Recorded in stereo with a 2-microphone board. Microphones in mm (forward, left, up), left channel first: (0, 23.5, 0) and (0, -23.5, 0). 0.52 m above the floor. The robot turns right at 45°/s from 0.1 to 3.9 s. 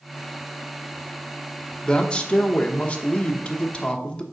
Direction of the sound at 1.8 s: 20° left (ahead or behind).